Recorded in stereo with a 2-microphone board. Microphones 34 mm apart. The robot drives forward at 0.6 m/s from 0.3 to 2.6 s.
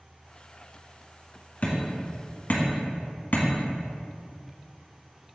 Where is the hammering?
40° left (ahead or behind), 2 m; by 3.5 s 55° left (ahead or behind), 1.8 m.